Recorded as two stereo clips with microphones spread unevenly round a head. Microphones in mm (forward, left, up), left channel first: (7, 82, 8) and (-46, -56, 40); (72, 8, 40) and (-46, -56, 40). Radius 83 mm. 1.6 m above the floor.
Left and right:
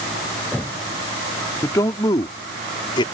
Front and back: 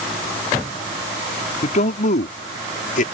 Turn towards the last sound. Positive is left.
turn(degrees=5)